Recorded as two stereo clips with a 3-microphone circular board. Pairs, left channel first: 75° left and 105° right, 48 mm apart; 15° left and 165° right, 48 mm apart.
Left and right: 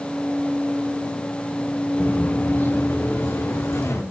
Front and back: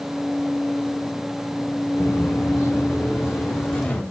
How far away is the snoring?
No snoring in this recording.